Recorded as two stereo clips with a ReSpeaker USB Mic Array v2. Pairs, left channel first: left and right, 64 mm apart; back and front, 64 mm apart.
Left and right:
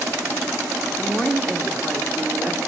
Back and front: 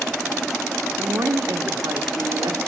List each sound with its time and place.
1.0 s a woman speaking: 10° right, 1.4 m